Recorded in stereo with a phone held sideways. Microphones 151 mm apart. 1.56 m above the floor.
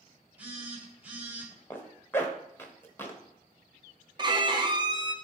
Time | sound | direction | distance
0.4 | a phone buzzing | 10° right (ahead or behind) | 3 m
1.7 | a zipper | 15° left (ahead or behind) | 1.3 m
4.2 | a violin | 30° right (ahead or behind) | 0.9 m